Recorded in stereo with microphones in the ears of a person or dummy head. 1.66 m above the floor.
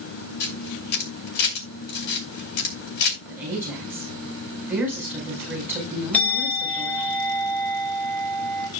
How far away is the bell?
About 4 m.